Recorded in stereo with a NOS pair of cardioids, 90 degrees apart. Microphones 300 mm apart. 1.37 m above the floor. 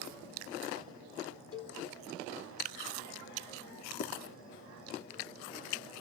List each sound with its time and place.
1.5 s a cowbell: 50° left, 4.5 m
4.0 s writing: 50° left, 3 m